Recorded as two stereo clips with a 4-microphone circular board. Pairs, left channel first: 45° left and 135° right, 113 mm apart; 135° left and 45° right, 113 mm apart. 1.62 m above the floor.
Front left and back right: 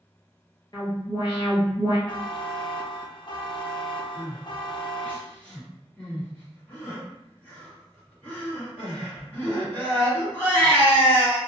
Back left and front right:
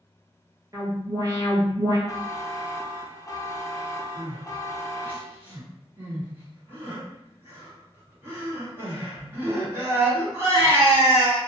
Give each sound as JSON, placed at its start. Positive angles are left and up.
{"t": 0.7, "sound": "an alarm", "azimuth_deg": 5, "distance_m": 1.5}
{"t": 2.1, "sound": "a buzzer", "azimuth_deg": 75, "distance_m": 0.5}
{"t": 4.2, "sound": "crying", "azimuth_deg": -10, "distance_m": 1.2}